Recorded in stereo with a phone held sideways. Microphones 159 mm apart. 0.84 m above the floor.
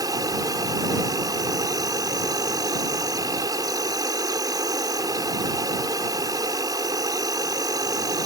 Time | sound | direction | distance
0.0 | an insect | 25° right (ahead or behind) | ?